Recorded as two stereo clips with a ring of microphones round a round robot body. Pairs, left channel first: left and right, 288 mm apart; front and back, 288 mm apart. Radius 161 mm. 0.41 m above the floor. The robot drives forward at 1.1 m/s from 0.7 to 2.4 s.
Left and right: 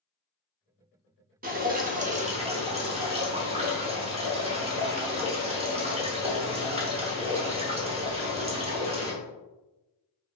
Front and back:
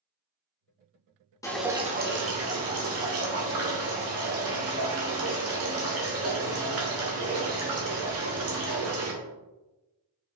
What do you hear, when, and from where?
1.4 s dripping: 70° right, 0.9 m; by 9.1 s 155° right, 1.3 m